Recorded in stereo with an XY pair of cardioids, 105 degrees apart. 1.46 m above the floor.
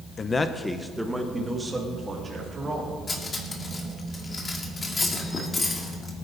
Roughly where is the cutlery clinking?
Ahead left.